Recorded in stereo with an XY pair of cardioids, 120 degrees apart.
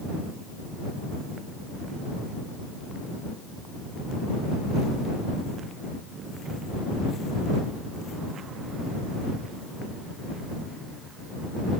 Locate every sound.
Only background noise.